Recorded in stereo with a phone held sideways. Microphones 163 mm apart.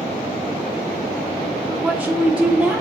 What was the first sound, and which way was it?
A woman speaking, 5° right (ahead or behind).